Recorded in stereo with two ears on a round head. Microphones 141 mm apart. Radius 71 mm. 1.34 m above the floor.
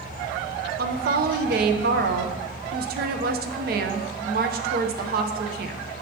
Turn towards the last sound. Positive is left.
turn(degrees=-65)  # may be behind; listen again after turning